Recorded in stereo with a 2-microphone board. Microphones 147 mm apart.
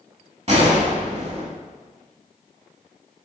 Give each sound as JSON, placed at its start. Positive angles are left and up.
{"t": 0.5, "sound": "a gunshot", "side_deg": -50, "distance_m": 1.0}